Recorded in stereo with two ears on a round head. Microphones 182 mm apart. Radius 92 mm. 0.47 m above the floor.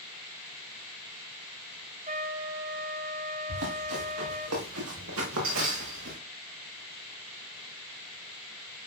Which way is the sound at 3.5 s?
85° right.